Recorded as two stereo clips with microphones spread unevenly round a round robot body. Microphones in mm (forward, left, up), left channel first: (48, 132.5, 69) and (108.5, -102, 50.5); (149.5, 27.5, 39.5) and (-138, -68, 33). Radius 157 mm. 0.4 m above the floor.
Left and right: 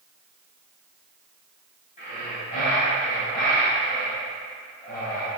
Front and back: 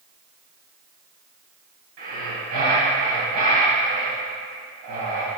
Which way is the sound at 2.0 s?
170° left.